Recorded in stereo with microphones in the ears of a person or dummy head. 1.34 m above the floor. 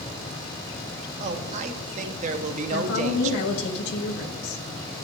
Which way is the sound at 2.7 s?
65° left (ahead or behind).